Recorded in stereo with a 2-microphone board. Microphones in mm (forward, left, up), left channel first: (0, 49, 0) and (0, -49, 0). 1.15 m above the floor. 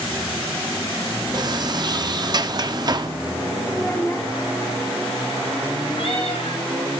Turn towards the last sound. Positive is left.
turn(degrees=70)  # may be behind; listen again after turning